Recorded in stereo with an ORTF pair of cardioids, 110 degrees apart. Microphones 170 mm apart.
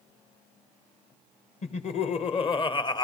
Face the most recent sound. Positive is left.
turn(degrees=25)